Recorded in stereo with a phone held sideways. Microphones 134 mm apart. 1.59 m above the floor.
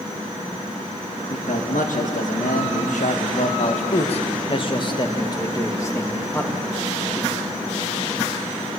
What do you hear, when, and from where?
1.3 s a man speaking: 80° left, 2 m; by 6.6 s 15° left (ahead or behind), 2.5 m